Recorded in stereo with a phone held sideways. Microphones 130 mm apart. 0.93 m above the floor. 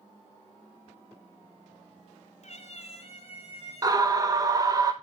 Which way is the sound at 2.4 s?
60° left (ahead or behind).